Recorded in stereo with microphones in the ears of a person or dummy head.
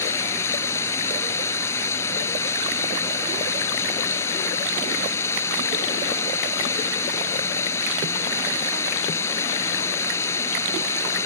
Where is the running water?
15° left (ahead or behind).